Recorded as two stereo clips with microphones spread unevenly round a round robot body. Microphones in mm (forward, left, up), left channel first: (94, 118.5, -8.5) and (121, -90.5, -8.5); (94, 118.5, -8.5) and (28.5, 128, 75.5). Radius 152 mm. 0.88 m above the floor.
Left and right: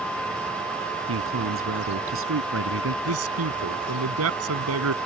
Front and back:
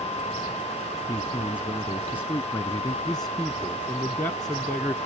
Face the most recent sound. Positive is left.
turn(degrees=-90)